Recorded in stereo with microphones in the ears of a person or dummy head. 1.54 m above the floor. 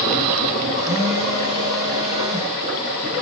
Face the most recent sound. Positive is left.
turn(degrees=-20)  # may be behind; listen again after turning